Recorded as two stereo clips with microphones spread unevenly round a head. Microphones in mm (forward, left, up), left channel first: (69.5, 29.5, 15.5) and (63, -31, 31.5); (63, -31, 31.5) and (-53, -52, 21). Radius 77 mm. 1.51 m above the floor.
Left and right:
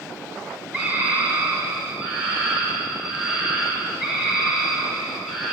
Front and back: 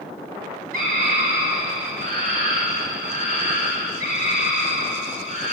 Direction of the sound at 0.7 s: 170° left.